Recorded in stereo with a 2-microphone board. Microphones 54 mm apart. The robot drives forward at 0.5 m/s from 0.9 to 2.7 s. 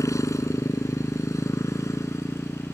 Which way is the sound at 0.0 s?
80° left.